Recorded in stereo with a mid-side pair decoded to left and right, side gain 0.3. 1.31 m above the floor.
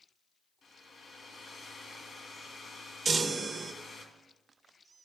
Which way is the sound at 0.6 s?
65° left.